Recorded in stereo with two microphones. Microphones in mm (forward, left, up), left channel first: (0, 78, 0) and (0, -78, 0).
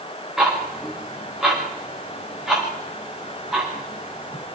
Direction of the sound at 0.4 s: Centre (ahead or behind).